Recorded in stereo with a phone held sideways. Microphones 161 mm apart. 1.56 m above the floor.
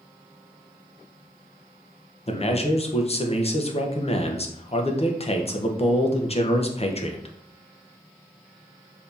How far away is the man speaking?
About 0.7 m.